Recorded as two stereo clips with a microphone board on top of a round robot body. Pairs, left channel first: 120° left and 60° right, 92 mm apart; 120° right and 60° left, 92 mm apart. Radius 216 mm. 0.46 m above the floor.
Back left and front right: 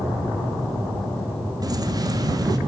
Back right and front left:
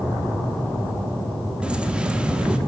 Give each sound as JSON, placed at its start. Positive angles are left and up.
{"t": 1.6, "sound": "keys jangling", "azimuth_deg": -20, "distance_m": 1.0}